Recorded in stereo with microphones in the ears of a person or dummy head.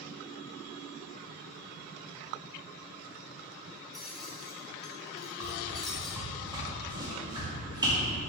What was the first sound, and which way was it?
Keys jangling, 5° left (ahead or behind).